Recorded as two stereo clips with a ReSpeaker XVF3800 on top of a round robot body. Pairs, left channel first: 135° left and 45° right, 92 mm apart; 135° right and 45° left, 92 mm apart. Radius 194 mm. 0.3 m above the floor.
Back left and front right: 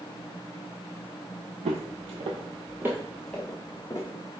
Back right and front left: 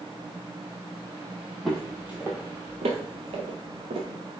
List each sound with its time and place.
1.6 s footsteps: 50° right, 0.8 m; by 4.1 s 75° left, 1.1 m